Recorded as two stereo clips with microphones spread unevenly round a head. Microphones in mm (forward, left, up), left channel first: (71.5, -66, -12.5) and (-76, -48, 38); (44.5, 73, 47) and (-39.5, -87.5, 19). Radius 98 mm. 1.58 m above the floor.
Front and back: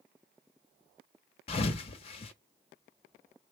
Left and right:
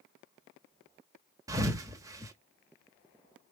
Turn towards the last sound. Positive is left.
turn(degrees=-45)